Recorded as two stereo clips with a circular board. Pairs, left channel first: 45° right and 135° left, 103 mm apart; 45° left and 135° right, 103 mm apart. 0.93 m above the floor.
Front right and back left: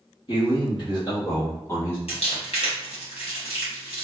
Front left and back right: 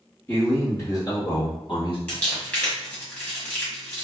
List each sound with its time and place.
0.3 s a man speaking: 25° right, 1.4 m; by 2.0 s 20° left, 1.2 m
2.1 s crumpling: 30° right, 1.1 m